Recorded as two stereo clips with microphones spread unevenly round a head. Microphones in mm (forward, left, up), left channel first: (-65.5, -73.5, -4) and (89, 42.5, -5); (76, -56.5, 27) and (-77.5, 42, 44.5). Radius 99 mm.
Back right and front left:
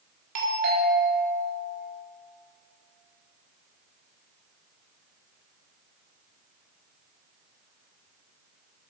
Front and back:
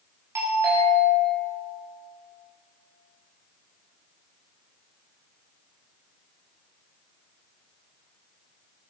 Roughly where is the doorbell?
Left.